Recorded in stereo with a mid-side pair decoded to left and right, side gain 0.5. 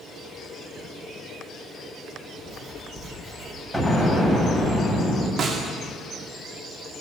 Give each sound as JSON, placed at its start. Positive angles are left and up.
{"t": 2.4, "sound": "writing", "azimuth_deg": -30, "distance_m": 6.0}
{"t": 3.7, "sound": "an explosion", "azimuth_deg": -5, "distance_m": 8.5}
{"t": 5.4, "sound": "a snare drum", "azimuth_deg": -50, "distance_m": 2.5}